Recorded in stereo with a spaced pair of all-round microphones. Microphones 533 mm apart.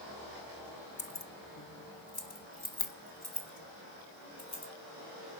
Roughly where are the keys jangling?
Left.